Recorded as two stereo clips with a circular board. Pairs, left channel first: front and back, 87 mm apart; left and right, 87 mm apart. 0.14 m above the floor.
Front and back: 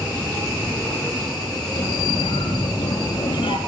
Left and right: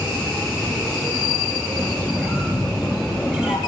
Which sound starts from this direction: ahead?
A squeak, at 1.8 s.